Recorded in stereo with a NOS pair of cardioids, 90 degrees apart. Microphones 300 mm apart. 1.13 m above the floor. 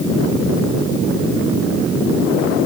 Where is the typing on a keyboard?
I don't hear typing on a keyboard.